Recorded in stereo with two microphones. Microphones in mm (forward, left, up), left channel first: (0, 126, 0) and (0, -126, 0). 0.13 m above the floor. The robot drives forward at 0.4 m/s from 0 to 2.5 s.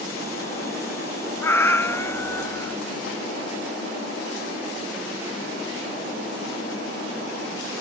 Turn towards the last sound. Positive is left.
turn(degrees=10)  # may be behind; listen again after turning